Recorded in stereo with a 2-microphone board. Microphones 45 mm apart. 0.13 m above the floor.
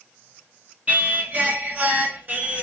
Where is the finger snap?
I don't hear a finger snap.